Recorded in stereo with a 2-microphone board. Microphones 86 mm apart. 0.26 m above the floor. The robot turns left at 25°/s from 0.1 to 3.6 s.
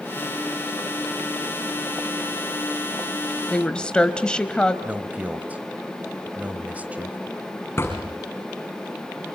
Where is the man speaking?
20° right (ahead or behind), 1.5 m.